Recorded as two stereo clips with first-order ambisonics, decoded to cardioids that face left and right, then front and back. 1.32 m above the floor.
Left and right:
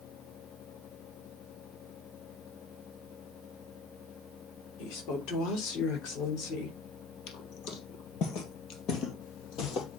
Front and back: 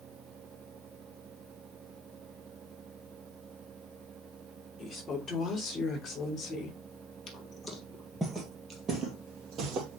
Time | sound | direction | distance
4.8 | a woman speaking | 75° left | 3.5 m
7.3 | footsteps | 65° left | 2 m